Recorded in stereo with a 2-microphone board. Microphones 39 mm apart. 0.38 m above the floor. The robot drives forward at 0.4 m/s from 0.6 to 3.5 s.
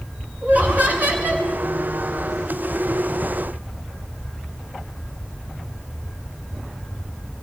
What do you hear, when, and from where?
0.4 s laughter: 45° right (ahead or behind), 4.5 m; by 1.5 s 50° right (ahead or behind), 4 m